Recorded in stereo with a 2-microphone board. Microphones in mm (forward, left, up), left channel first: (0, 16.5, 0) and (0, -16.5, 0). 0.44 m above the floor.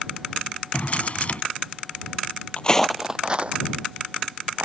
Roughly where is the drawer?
Left.